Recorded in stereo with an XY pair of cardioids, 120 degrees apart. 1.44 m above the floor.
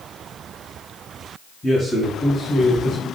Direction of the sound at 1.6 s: 15° left.